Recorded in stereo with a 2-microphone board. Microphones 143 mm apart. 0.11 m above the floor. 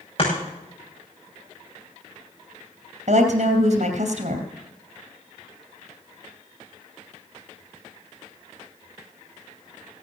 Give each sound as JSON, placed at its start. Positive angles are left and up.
{"t": 0.2, "sound": "chopping", "side_deg": 40, "distance_m": 7.5}
{"t": 3.1, "sound": "a woman speaking", "side_deg": -60, "distance_m": 3.0}